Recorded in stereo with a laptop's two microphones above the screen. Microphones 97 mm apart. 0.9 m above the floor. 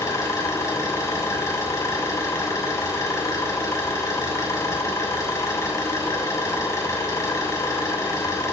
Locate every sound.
0.0 s an engine running: 30° left (ahead or behind), 6.5 m